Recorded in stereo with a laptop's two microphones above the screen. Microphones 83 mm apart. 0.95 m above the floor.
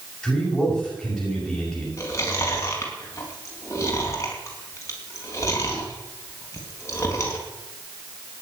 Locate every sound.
0.2 s a man speaking: centre (ahead or behind), 7.5 m
2.0 s chewing: 35° left (ahead or behind), 4.5 m